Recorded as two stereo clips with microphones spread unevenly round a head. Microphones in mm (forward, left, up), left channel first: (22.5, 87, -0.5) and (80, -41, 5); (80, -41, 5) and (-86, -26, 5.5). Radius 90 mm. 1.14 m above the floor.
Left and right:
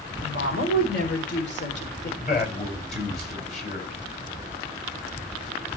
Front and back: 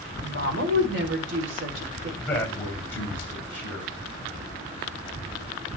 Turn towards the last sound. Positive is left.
turn(degrees=75)